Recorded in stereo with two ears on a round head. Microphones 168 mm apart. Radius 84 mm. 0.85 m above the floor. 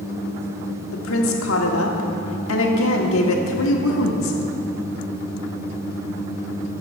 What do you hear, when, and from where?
0.9 s a woman speaking: 80° left, 1.6 m